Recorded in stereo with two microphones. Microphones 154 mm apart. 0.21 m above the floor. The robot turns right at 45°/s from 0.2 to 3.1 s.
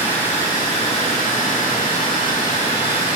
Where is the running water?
15° left, 3 m; by 3.2 s 145° left, 3 m.